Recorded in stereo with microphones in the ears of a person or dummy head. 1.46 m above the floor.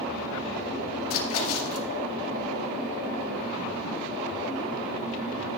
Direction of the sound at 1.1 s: 75° left (ahead or behind).